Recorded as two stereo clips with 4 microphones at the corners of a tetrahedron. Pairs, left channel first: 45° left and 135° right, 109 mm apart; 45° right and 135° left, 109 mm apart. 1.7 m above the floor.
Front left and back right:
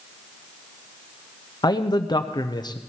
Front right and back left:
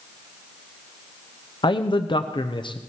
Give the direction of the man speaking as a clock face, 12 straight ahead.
12 o'clock.